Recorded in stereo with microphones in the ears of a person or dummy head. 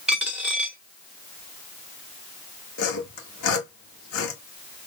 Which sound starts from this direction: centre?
A dropped coin, at 0.1 s.